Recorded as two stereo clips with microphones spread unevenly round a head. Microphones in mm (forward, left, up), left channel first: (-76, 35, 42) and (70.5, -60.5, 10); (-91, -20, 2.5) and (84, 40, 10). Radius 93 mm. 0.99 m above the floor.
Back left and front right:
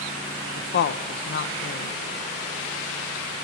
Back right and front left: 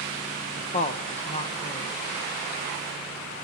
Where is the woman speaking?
160° left, 0.6 m.